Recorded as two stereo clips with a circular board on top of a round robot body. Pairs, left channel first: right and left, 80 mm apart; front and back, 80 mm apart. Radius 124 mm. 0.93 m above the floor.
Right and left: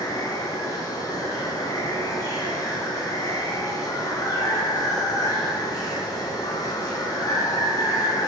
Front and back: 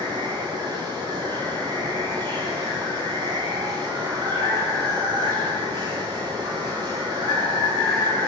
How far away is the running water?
About 9.5 m.